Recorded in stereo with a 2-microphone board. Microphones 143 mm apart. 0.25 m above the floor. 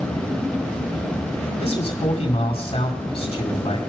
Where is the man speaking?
45° left (ahead or behind), 2 m.